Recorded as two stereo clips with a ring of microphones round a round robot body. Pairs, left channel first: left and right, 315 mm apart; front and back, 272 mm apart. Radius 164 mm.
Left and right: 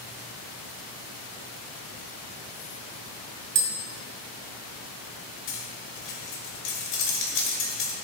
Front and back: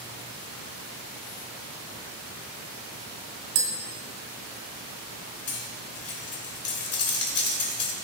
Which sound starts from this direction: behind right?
Tapping, at 3.5 s.